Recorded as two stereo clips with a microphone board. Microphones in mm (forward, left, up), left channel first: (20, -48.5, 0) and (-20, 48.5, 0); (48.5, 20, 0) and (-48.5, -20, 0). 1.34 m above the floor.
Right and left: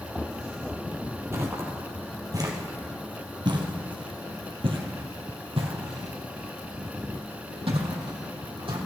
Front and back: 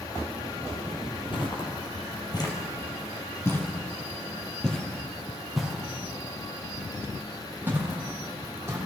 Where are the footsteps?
50° left, 2.5 m; by 8.8 s 140° left, 4 m.